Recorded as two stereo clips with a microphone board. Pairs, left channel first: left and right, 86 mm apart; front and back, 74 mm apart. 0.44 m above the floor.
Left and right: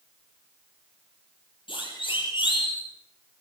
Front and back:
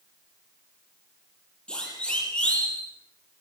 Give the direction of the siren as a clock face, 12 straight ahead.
9 o'clock.